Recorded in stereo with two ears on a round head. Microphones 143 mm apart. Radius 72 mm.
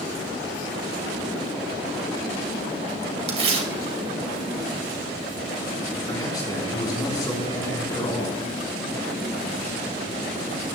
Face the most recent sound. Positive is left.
turn(degrees=25)  # may be behind; listen again after turning